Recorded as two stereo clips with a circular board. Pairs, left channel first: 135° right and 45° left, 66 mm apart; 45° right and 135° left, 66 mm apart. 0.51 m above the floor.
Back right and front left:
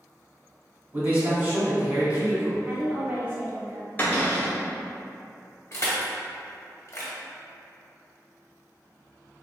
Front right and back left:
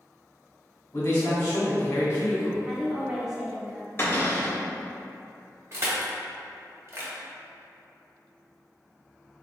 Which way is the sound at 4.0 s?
85° right.